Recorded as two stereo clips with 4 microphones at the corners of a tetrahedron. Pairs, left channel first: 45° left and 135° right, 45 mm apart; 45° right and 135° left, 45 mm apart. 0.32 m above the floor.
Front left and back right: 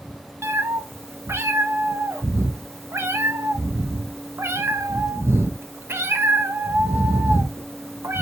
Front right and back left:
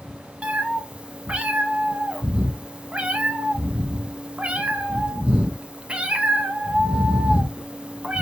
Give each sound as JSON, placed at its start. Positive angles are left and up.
{"t": 0.4, "sound": "a cat meowing", "azimuth_deg": -160, "distance_m": 0.8}